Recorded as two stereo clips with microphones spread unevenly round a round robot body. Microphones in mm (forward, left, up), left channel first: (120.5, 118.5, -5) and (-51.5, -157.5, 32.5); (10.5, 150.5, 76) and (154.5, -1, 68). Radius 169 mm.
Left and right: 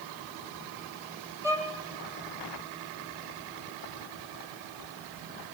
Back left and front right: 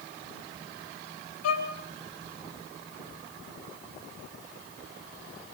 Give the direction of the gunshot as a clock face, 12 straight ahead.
I don't hear a gunshot.